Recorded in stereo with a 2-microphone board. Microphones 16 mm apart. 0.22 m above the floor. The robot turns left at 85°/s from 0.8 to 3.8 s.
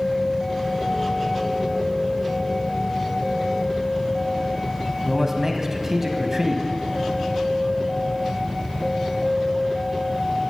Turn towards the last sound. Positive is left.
turn(degrees=-25)  # may be behind; listen again after turning